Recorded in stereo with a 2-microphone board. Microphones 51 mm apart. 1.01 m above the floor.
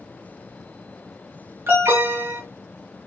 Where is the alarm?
50° right (ahead or behind), 2.5 m.